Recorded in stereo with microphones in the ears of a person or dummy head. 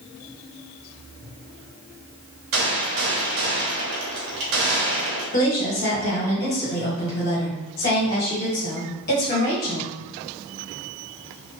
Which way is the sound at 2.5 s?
60° right (ahead or behind).